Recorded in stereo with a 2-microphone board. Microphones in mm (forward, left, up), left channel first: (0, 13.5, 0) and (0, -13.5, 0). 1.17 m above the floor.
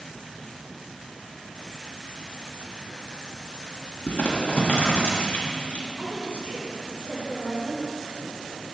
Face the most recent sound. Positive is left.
turn(degrees=-50)  # may be behind; listen again after turning